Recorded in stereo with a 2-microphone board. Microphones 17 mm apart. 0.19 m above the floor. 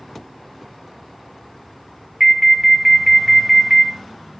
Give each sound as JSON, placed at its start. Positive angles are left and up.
{"t": 2.2, "sound": "an alarm", "side_deg": -30, "distance_m": 1.7}